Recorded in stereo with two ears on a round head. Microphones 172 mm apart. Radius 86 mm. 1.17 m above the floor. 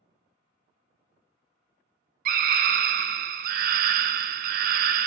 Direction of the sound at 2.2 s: 45° right (ahead or behind).